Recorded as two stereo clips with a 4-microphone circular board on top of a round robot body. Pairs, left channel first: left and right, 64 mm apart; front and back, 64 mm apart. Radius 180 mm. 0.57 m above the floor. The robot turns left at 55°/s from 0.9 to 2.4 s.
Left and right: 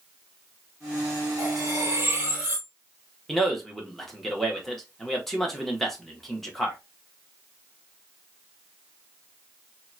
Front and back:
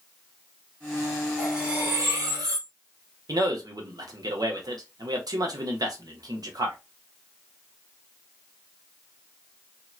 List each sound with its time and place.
1.4 s cutlery clinking: 100° right, 1.9 m; by 2.7 s 160° right, 1.9 m
3.3 s a man speaking: 175° left, 1.4 m